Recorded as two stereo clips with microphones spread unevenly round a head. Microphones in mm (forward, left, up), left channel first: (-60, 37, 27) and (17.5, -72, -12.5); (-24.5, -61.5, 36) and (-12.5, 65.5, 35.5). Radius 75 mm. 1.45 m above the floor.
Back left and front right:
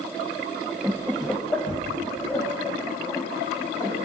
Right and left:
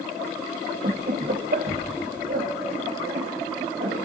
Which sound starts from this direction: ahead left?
Laughter, at 0.8 s.